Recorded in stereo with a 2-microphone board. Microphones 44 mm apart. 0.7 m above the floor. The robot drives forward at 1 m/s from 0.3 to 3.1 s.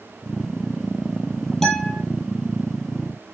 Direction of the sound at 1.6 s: 10° left (ahead or behind).